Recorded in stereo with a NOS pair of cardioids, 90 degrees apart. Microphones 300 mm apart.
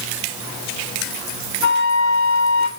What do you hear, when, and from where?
1.6 s a flute: 65° left, 2.5 m